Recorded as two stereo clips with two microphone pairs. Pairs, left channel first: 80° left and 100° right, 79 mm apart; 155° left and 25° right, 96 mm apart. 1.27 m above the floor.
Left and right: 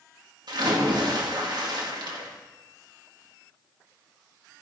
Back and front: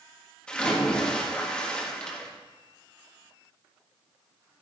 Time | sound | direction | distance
0.5 | a splash | 125° right | 1.7 m